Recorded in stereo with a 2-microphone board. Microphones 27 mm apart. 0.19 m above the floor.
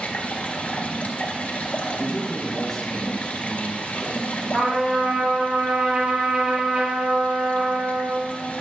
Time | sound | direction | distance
0.0 | running water | 60° left (ahead or behind) | 1.6 m
1.9 | a man speaking | 15° left (ahead or behind) | 2.5 m
4.5 | a trumpet | 65° right (ahead or behind) | 3.5 m